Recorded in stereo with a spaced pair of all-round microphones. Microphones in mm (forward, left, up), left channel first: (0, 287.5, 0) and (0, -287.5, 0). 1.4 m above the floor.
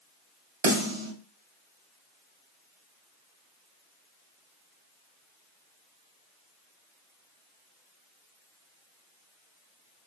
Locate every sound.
0.6 s a snare drum: 50° right (ahead or behind), 0.9 m